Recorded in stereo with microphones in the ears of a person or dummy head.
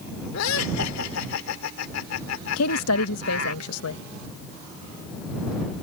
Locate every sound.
0.3 s laughter: 80° left
2.6 s a woman speaking: 90° left